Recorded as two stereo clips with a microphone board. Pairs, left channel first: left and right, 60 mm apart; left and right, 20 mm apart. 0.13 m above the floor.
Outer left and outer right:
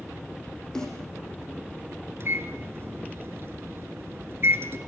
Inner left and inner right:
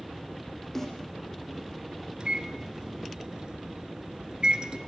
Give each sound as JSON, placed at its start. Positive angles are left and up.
{"t": 0.8, "sound": "a snare drum", "side_deg": 10, "distance_m": 7.5}
{"t": 2.2, "sound": "a microwave", "side_deg": -45, "distance_m": 1.7}